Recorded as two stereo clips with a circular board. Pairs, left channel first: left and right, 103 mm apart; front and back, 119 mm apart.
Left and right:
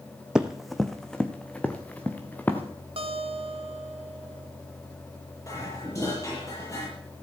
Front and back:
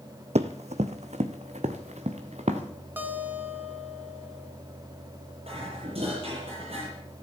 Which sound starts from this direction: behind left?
Dishes clattering, at 5.5 s.